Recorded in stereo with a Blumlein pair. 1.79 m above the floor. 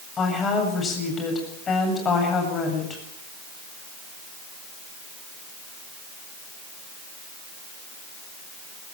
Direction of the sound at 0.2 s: 20° left.